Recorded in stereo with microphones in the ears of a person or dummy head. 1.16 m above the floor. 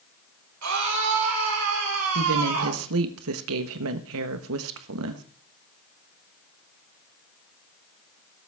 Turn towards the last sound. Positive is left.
turn(degrees=-80)